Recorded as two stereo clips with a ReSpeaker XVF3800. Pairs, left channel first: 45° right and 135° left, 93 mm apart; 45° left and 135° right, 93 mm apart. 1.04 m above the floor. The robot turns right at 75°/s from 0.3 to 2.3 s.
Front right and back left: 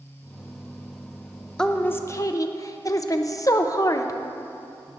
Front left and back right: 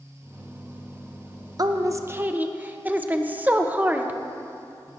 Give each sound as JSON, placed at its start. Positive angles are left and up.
{"t": 1.6, "sound": "a woman speaking", "azimuth_deg": -125, "distance_m": 0.9}